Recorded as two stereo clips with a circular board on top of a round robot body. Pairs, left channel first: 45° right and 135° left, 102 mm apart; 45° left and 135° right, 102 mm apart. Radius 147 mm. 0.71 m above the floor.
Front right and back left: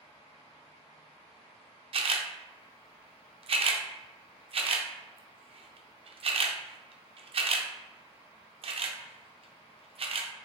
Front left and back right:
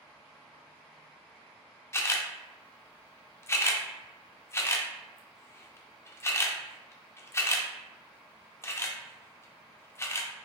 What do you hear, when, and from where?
1.9 s a camera shutter: 110° left, 0.6 m